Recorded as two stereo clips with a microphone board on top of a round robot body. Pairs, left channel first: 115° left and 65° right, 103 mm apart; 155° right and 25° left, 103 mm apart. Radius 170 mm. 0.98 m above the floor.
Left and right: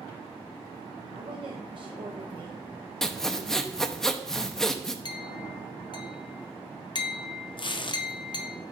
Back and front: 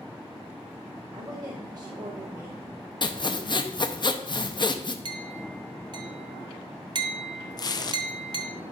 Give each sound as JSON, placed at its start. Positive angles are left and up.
{"t": 1.1, "sound": "a woman speaking", "azimuth_deg": -30, "distance_m": 0.9}
{"t": 3.0, "sound": "sawing", "azimuth_deg": -165, "distance_m": 0.9}
{"t": 5.0, "sound": "a clink", "azimuth_deg": 65, "distance_m": 0.7}
{"t": 7.6, "sound": "tearing paper", "azimuth_deg": 150, "distance_m": 0.6}